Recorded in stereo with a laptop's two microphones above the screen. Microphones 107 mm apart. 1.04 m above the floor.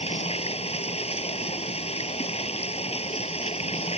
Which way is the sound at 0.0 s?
75° left (ahead or behind).